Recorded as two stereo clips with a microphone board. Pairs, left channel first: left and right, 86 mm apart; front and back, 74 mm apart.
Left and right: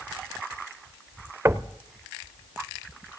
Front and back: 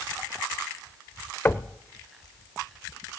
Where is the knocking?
50° right, 0.6 m.